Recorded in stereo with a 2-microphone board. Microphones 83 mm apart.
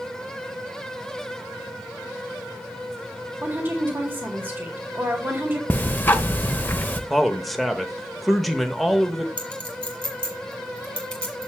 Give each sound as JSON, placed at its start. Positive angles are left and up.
{"t": 3.4, "sound": "a woman speaking", "side_deg": -25, "distance_m": 1.3}
{"t": 5.7, "sound": "ticking", "side_deg": 25, "distance_m": 0.8}
{"t": 7.1, "sound": "a man speaking", "side_deg": 0, "distance_m": 0.8}
{"t": 9.4, "sound": "a clink", "side_deg": 15, "distance_m": 2.0}